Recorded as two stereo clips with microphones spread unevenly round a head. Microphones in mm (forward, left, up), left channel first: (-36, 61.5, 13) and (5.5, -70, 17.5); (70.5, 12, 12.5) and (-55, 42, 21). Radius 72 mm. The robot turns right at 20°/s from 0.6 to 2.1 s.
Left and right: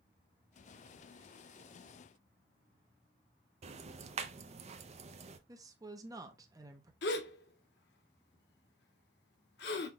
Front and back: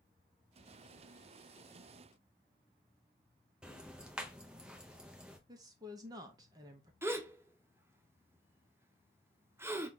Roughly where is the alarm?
I don't hear an alarm.